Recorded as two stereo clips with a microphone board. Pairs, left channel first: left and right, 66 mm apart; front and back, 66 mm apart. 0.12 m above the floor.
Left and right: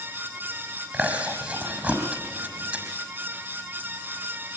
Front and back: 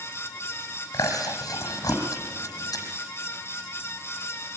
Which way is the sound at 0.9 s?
20° right.